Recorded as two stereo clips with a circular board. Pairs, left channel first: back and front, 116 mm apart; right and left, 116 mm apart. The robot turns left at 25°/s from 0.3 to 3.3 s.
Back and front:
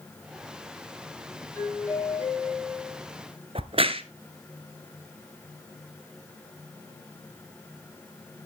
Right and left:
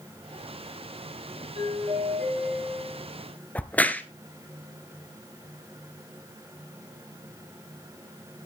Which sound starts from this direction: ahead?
A crack, at 3.5 s.